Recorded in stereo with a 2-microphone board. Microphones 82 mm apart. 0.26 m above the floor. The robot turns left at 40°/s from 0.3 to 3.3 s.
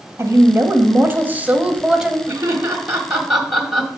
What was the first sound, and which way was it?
A woman speaking, 95° right.